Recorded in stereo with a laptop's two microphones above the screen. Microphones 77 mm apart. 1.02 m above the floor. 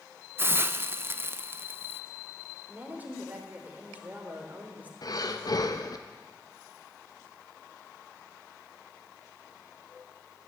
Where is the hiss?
30° right (ahead or behind), 0.5 m.